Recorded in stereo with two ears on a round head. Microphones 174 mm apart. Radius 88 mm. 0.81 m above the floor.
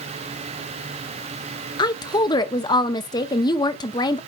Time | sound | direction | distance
1.8 | a woman speaking | 20° left (ahead or behind) | 0.6 m